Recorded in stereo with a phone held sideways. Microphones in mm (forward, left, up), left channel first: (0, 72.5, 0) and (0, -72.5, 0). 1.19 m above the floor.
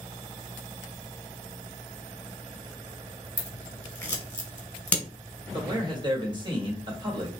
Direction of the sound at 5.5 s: 30° right (ahead or behind).